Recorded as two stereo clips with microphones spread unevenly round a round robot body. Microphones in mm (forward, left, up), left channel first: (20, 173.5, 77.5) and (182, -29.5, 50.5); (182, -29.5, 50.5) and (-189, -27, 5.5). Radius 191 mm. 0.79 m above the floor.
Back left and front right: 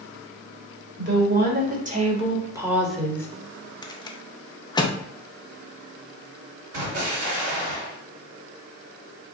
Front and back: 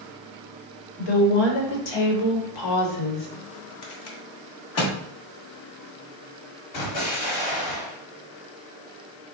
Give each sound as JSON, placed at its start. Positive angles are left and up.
{"t": 1.0, "sound": "a woman speaking", "azimuth_deg": -10, "distance_m": 1.6}
{"t": 3.8, "sound": "a rattle", "azimuth_deg": 50, "distance_m": 0.7}
{"t": 6.7, "sound": "an explosion", "azimuth_deg": -20, "distance_m": 1.6}